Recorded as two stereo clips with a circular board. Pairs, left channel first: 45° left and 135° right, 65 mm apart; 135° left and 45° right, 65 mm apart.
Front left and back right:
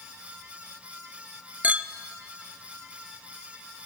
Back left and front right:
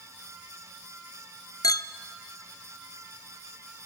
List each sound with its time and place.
1.6 s a clink: 155° left, 0.5 m